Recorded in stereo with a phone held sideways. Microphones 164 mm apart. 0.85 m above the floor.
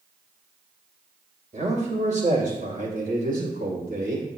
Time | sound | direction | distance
1.5 | a man speaking | 50° right (ahead or behind) | 3.5 m